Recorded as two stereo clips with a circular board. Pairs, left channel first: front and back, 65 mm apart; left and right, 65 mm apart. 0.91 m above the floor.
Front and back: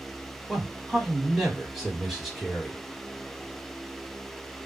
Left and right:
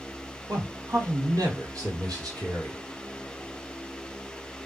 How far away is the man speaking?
About 1.6 m.